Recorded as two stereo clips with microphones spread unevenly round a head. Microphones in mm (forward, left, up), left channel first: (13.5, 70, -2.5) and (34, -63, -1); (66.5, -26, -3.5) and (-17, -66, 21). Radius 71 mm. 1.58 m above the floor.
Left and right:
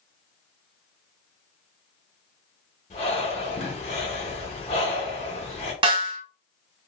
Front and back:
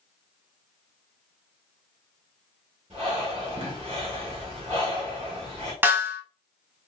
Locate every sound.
2.9 s breathing: 150° left, 1.0 m
5.8 s a snare drum: 115° right, 0.9 m